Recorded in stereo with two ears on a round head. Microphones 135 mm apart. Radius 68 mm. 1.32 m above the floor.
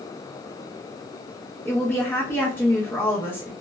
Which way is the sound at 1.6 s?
15° left (ahead or behind).